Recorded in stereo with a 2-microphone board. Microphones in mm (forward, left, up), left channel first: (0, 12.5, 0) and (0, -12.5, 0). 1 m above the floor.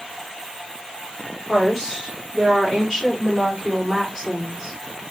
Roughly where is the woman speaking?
Centre.